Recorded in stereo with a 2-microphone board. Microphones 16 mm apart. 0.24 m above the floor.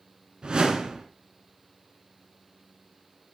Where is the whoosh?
60° right (ahead or behind), 1.6 m.